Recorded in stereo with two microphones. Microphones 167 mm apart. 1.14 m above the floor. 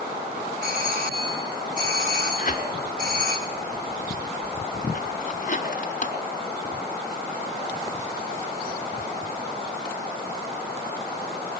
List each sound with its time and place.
0.6 s a doorbell: 65° right (ahead or behind), 4.5 m
2.4 s tearing paper: 55° left (ahead or behind), 4 m